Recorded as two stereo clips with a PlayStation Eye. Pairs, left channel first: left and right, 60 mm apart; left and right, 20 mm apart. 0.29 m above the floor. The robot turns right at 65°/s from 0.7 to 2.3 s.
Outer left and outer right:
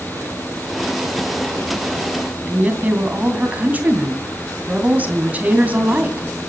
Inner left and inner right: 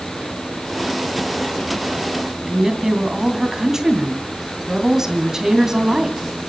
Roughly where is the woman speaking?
Right.